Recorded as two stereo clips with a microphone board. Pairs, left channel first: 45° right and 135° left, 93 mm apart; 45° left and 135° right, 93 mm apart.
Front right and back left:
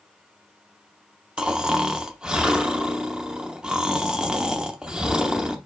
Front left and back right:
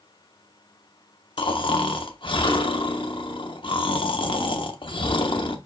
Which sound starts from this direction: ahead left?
Snoring, at 1.4 s.